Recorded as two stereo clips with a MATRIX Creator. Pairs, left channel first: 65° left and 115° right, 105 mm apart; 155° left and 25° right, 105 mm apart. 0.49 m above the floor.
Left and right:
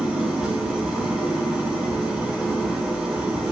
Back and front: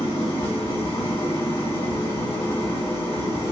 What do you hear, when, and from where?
0.0 s an engine running: 160° left, 1.6 m